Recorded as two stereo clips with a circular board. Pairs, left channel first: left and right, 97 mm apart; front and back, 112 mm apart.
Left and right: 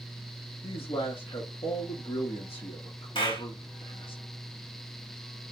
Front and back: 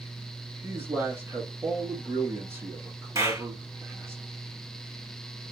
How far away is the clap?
About 2.5 m.